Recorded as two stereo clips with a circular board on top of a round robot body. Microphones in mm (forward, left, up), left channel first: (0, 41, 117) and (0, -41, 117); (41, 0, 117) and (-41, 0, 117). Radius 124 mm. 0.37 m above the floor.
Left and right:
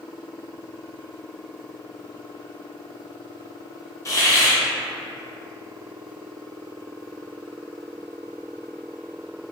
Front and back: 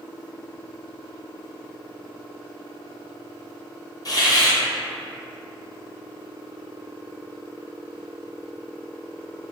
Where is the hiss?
40° left, 1.0 m.